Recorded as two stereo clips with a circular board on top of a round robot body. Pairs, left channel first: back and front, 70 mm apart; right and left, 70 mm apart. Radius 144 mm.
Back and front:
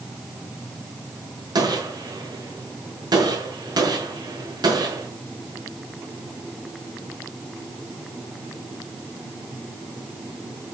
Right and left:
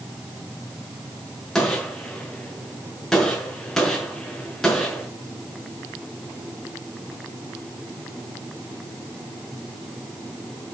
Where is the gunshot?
5° right, 5.5 m.